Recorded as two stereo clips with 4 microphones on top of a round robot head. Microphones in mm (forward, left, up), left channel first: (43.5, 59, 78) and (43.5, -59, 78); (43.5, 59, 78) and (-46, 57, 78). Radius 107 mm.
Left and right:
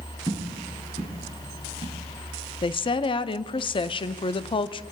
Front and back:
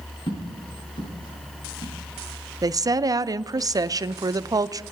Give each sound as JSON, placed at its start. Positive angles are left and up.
{"t": 0.3, "sound": "footsteps", "azimuth_deg": 25, "distance_m": 8.0}
{"t": 2.6, "sound": "a woman speaking", "azimuth_deg": 135, "distance_m": 0.6}